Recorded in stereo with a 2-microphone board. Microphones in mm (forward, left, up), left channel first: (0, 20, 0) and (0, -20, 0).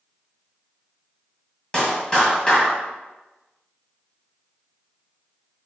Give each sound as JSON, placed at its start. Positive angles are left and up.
{"t": 1.7, "sound": "a clap", "side_deg": 20, "distance_m": 1.7}